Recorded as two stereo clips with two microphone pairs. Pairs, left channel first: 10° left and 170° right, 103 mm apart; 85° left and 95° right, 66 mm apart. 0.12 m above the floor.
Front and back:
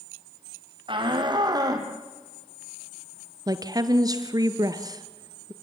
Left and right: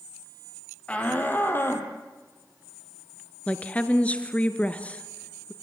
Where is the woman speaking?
150° left, 1.8 m.